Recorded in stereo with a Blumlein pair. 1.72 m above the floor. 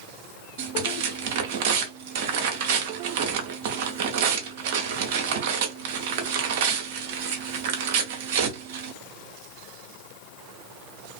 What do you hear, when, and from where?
0.6 s tearing paper: 50° right, 0.8 m